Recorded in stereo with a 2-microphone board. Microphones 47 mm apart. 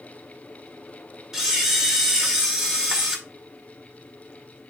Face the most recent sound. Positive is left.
turn(degrees=-10)  # may be behind; listen again after turning